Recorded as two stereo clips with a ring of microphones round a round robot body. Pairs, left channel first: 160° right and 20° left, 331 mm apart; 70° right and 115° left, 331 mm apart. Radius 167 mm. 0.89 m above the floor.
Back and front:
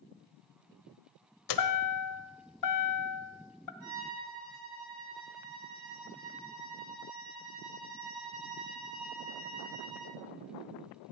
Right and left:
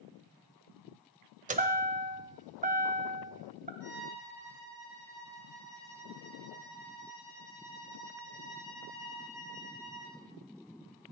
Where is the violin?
20° left, 8.5 m.